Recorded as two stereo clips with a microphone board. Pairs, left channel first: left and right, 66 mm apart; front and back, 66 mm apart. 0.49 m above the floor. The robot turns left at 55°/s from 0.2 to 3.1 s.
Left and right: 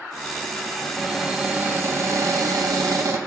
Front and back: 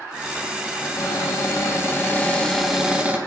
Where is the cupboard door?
15° left, 2.5 m; by 3.2 s 115° right, 2.5 m.